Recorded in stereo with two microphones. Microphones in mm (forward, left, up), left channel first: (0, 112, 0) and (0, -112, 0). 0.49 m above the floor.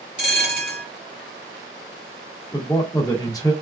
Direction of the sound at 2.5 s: 15° left (ahead or behind).